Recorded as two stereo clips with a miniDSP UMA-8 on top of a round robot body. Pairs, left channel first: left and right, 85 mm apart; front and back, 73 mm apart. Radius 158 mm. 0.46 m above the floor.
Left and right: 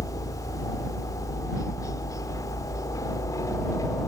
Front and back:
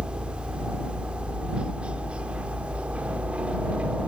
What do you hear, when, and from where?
0.0 s a helicopter: 110° left; by 4.1 s 115° left